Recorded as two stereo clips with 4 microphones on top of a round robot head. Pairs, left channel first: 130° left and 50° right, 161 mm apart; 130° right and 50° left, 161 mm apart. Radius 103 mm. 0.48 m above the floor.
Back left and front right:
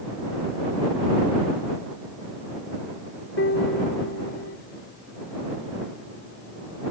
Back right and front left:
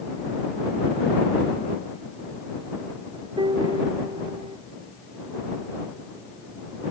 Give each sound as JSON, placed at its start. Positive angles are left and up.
{"t": 3.4, "sound": "a piano", "azimuth_deg": 115}